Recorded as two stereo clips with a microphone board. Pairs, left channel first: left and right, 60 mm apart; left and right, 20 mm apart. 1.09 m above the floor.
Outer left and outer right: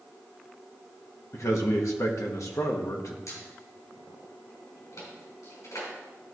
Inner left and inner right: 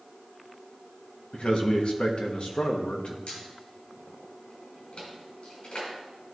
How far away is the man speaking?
About 1.2 m.